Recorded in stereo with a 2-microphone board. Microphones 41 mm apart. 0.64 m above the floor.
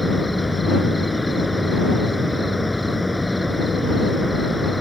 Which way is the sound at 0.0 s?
5° right (ahead or behind).